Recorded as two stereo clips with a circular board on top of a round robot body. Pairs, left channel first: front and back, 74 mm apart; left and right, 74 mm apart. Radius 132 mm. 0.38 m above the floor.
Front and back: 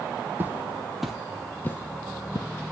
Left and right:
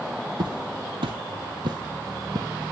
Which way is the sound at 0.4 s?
115° right.